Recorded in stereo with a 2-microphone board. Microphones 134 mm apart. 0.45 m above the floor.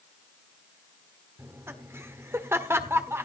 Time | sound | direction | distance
1.4 | laughter | 20° right (ahead or behind) | 1.4 m